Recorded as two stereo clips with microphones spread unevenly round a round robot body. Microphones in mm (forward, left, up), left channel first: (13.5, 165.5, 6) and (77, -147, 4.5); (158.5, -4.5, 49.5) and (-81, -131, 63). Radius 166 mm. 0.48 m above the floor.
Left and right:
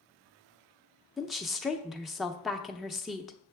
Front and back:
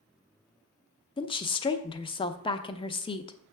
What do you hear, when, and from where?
1.2 s a woman speaking: 10° left, 0.7 m